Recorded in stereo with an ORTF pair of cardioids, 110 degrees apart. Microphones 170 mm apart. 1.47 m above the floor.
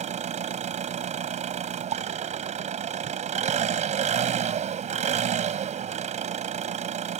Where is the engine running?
45° right.